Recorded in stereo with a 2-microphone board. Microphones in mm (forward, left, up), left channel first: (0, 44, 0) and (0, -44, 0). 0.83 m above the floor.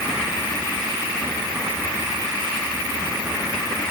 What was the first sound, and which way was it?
Only background noise.